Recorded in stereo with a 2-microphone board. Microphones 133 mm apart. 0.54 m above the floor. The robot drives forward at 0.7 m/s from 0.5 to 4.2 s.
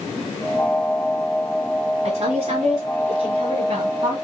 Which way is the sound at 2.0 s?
50° right (ahead or behind).